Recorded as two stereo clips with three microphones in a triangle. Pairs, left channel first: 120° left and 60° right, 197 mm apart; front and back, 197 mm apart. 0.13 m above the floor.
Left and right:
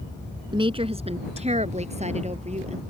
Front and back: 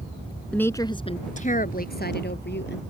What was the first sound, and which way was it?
A woman speaking, 75° right.